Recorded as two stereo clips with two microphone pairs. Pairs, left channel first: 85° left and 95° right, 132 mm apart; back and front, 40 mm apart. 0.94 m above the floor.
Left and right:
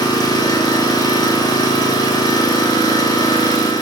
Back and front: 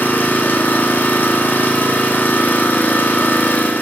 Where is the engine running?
150° left, 1.0 m.